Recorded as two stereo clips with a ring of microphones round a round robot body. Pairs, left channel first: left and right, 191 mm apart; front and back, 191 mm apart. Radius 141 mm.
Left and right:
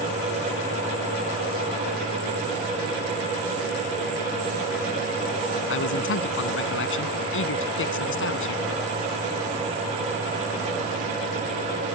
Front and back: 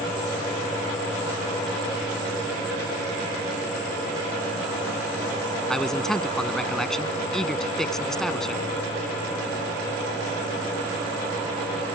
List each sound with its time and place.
5.7 s a man speaking: 85° left